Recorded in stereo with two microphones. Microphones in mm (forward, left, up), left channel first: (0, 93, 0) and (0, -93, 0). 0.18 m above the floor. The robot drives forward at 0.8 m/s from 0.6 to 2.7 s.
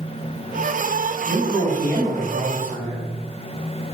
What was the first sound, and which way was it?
A man speaking, 15° left (ahead or behind).